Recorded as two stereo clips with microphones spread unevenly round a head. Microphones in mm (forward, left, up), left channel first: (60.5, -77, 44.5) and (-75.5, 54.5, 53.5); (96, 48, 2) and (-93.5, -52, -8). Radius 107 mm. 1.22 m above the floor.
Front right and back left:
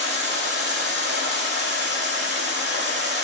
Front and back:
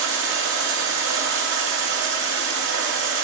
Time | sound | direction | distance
0.0 | running water | 170° left | 2 m